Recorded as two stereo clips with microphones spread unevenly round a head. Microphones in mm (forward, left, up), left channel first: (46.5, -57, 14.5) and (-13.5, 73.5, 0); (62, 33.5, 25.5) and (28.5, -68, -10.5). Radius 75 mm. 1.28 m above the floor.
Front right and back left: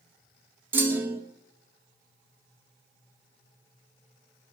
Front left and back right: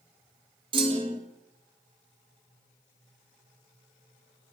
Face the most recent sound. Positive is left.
turn(degrees=-165)